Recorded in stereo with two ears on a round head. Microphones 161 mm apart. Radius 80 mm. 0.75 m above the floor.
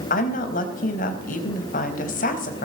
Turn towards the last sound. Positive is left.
turn(degrees=50)  # may be behind; listen again after turning